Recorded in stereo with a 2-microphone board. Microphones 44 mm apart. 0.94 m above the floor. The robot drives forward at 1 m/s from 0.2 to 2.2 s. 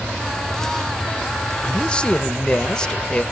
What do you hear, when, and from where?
1.6 s a man speaking: 25° left (ahead or behind), 0.7 m; by 3.2 s 15° left (ahead or behind), 1.0 m